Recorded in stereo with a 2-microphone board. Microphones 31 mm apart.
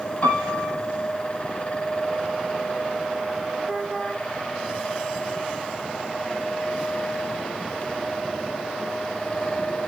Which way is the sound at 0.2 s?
55° left (ahead or behind).